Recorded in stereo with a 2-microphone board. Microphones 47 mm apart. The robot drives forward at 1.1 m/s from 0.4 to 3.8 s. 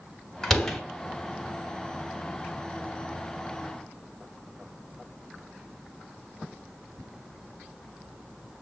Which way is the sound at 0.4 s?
10° left (ahead or behind).